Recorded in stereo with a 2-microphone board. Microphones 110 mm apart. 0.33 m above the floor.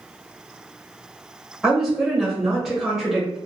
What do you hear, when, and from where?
1.6 s a woman speaking: 5° right (ahead or behind), 1.0 m